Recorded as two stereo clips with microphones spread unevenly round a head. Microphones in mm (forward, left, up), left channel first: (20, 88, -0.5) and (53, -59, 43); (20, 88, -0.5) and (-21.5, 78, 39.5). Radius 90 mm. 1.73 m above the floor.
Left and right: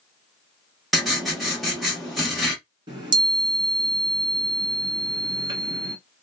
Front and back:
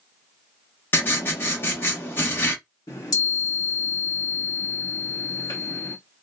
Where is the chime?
55° right, 1.1 m.